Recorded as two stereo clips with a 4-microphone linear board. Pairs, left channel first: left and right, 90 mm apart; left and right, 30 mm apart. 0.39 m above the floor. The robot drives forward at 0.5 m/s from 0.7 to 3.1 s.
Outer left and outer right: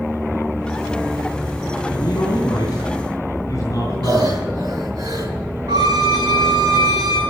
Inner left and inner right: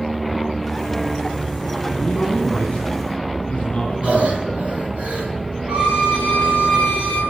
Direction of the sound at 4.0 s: 45° right (ahead or behind).